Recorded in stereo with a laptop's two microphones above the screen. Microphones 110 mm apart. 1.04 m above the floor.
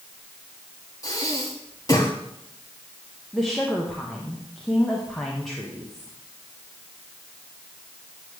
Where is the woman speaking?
5° left (ahead or behind), 0.8 m.